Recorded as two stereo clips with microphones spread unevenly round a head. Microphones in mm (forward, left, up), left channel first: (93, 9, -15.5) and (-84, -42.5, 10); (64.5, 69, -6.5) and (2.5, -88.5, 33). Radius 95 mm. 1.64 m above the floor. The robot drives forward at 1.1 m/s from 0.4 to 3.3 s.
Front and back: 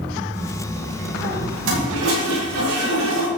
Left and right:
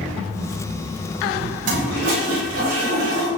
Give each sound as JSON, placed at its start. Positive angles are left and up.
{"t": 1.6, "sound": "a toilet flushing", "azimuth_deg": -150, "distance_m": 7.0}